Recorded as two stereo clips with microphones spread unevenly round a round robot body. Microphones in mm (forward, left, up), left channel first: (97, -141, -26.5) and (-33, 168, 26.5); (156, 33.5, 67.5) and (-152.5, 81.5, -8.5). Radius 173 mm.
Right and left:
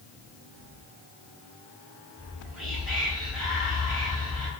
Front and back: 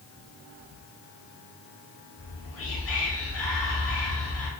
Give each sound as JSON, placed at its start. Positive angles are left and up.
{"t": 2.2, "sound": "whispering", "azimuth_deg": 5, "distance_m": 1.1}